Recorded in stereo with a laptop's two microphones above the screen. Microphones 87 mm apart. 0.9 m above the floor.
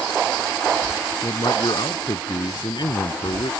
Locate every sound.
1.2 s a man speaking: 55° left (ahead or behind)